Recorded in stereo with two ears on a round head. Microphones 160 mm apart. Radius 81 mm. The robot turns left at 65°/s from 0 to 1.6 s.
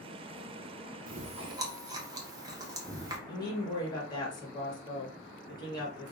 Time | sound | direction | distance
1.1 | chewing | 55° right (ahead or behind) | 0.8 m
3.3 | a woman speaking | 25° left (ahead or behind) | 1.2 m